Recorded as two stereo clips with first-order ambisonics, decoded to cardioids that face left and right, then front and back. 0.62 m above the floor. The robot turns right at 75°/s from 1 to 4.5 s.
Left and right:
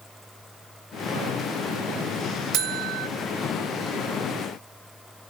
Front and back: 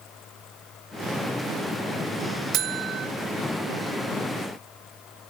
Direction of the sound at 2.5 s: 135° right.